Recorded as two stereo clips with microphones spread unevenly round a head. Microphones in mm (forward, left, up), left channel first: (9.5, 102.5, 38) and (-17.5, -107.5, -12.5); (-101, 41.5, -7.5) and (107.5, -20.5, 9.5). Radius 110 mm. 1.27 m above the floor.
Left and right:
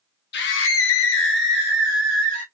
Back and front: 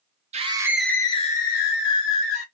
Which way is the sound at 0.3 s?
40° left.